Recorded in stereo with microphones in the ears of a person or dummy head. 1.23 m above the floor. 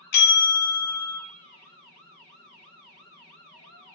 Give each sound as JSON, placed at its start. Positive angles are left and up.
{"t": 0.1, "sound": "a bell", "side_deg": 55, "distance_m": 0.5}